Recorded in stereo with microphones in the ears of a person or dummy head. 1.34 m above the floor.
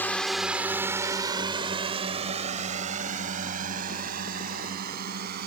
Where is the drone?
5° left (ahead or behind); by 5.5 s 60° right (ahead or behind).